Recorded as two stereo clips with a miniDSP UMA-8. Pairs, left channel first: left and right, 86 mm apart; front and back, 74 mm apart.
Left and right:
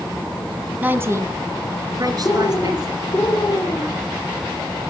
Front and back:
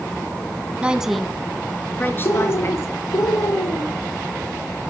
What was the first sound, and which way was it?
A woman speaking, 130° right.